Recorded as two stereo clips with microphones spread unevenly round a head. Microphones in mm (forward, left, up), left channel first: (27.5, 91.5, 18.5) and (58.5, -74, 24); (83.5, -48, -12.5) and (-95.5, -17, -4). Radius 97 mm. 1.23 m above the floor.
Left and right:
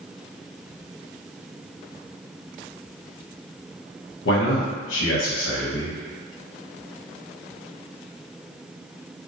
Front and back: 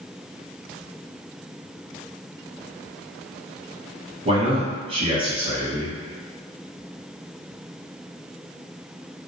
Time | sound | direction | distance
4.2 | a man speaking | 105° left | 0.8 m